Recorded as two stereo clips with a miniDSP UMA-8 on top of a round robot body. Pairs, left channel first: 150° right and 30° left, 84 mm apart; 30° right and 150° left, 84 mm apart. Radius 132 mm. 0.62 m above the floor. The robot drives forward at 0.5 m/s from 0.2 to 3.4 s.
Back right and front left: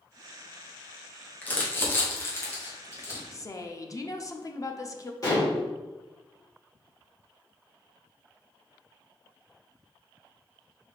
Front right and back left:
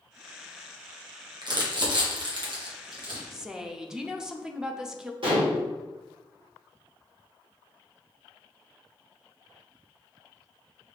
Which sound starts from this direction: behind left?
Crumpling, at 1.4 s.